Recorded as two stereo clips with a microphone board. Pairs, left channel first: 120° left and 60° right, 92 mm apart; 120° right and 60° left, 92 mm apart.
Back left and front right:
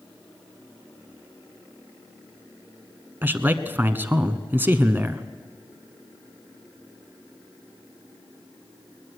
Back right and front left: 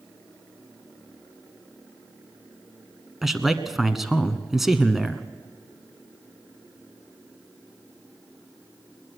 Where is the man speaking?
25° right, 1.2 m.